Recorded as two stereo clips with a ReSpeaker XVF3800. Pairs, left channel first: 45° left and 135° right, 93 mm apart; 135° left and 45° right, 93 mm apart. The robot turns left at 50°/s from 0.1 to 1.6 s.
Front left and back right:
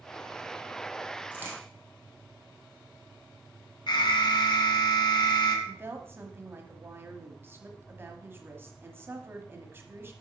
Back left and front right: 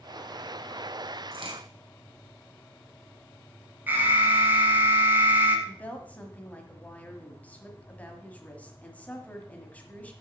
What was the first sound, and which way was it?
A crack, 60° right.